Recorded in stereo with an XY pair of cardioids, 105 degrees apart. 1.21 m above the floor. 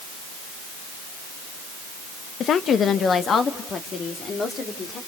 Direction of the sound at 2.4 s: 60° left.